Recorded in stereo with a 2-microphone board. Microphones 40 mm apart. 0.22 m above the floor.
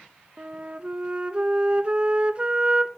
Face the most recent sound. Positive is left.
turn(degrees=-30)  # may be behind; listen again after turning